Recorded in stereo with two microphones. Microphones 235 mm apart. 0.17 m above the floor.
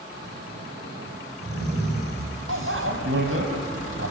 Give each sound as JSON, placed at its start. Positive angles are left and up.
{"t": 0.1, "sound": "snoring", "side_deg": -45, "distance_m": 8.0}
{"t": 2.5, "sound": "a bicycle bell", "side_deg": -60, "distance_m": 3.5}